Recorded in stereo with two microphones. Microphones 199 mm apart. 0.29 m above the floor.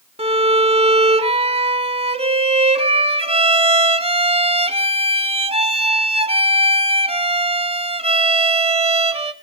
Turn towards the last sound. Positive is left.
turn(degrees=-30)  # may be behind; listen again after turning